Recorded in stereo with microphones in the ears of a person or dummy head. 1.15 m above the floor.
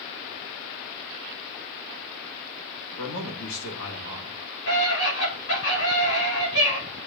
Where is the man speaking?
70° left (ahead or behind), 2.5 m.